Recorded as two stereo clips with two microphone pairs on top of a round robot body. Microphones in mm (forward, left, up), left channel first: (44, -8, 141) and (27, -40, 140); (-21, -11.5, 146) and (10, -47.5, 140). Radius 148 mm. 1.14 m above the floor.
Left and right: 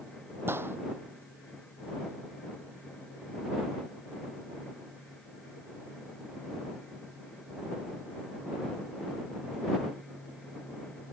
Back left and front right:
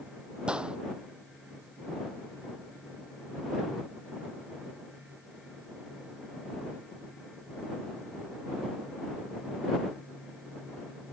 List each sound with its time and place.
0.5 s a gunshot: 120° right